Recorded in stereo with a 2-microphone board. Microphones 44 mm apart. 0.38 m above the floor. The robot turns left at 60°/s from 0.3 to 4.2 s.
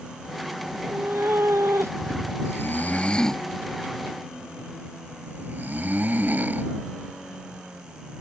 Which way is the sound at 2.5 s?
65° left (ahead or behind).